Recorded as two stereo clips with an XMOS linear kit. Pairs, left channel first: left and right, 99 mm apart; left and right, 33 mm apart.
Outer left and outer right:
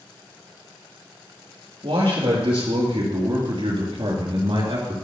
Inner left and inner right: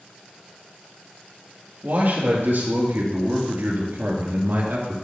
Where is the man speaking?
75° right (ahead or behind), 4.5 m; by 5.0 s 65° right (ahead or behind), 2.5 m.